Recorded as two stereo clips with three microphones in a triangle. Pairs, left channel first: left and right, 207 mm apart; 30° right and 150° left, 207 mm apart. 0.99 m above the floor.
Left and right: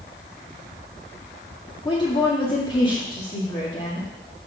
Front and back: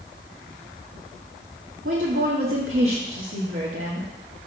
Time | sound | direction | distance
1.9 | a woman speaking | 155° left | 1.5 m